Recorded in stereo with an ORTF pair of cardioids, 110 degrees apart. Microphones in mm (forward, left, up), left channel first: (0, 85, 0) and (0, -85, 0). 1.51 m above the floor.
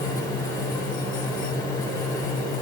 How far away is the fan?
About 7 m.